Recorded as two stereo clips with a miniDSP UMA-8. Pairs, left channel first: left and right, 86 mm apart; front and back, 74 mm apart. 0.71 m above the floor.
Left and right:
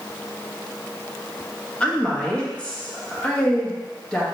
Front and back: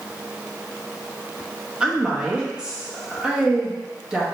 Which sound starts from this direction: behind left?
A woman speaking, at 1.8 s.